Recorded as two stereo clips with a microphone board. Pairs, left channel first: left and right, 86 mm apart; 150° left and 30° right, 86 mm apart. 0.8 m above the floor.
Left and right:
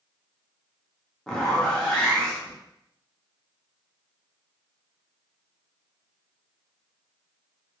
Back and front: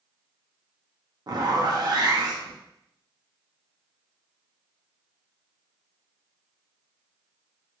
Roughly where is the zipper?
Ahead.